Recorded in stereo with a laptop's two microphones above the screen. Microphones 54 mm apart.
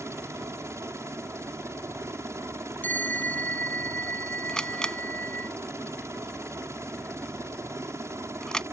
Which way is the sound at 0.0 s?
60° right (ahead or behind).